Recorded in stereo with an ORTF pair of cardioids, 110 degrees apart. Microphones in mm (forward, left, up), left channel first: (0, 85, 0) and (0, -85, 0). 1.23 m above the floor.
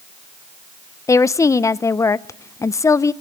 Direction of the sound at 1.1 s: 20° left.